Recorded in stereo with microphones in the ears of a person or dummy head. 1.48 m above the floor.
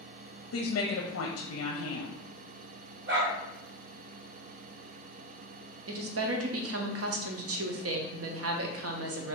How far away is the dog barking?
About 1.7 m.